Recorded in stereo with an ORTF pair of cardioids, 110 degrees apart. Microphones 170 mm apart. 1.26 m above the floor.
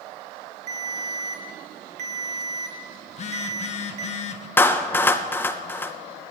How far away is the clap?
About 0.6 m.